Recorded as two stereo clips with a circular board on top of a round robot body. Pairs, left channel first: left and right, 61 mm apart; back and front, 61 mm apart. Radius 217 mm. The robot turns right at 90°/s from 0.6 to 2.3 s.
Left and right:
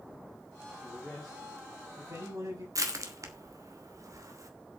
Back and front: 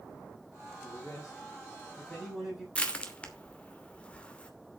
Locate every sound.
0.8 s a man speaking: 140° left, 7.5 m; by 2.6 s 90° right, 7.5 m
2.8 s crushing: 110° right, 2.5 m